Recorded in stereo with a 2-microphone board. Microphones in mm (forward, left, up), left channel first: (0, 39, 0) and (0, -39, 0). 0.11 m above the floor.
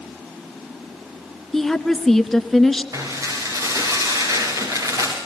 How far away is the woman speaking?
About 1.1 m.